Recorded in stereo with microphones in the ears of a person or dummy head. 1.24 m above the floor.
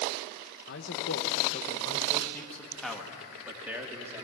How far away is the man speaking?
About 1.7 m.